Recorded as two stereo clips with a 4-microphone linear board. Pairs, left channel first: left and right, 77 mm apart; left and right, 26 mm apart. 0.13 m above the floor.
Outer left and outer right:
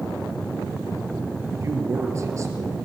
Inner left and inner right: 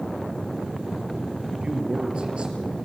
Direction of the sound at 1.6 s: 40° right (ahead or behind).